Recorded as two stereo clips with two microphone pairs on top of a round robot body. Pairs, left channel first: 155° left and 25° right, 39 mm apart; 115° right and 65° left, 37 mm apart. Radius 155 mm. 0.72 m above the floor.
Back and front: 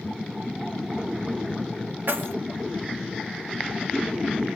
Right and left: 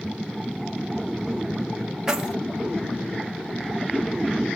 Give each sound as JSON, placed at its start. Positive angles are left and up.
{"t": 2.1, "sound": "keys jangling", "azimuth_deg": -10, "distance_m": 0.9}